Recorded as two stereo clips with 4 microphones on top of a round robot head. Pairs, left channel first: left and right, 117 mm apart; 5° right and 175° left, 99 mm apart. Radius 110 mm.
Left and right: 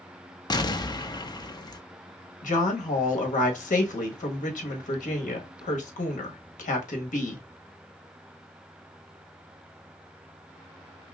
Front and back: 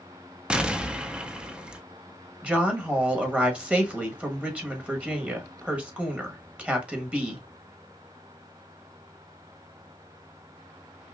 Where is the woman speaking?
95° left, 1.3 m.